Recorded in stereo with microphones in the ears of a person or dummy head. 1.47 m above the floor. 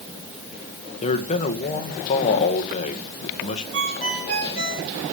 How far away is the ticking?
No ticking in this recording.